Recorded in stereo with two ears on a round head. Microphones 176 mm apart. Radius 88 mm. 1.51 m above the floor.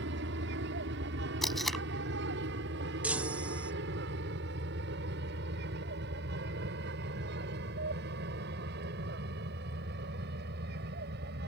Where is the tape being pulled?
Centre (ahead or behind).